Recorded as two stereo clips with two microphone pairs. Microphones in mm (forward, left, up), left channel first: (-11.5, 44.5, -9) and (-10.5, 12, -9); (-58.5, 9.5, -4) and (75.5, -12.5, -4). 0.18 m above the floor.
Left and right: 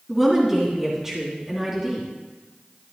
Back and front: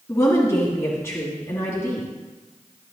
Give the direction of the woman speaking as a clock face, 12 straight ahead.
5 o'clock.